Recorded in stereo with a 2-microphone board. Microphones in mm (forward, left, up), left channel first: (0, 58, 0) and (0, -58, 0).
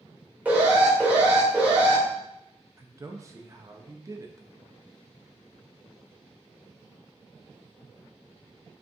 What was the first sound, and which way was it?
An alarm, 15° right (ahead or behind).